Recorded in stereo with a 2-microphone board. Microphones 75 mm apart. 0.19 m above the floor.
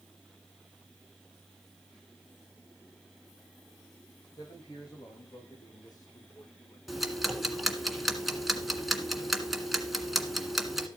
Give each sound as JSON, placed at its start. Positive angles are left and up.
{"t": 4.4, "sound": "a man speaking", "side_deg": 65, "distance_m": 10.0}
{"t": 6.9, "sound": "ticking", "side_deg": -5, "distance_m": 1.6}